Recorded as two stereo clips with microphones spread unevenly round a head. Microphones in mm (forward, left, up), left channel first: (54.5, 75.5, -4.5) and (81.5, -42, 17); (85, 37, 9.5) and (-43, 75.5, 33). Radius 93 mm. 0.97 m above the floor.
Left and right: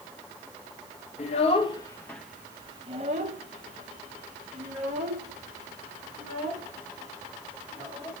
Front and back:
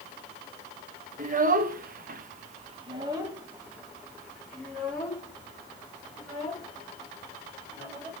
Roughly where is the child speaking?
Behind left.